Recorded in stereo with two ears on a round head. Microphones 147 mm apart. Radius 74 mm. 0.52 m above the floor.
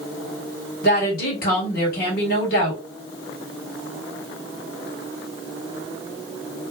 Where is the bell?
I don't hear a bell.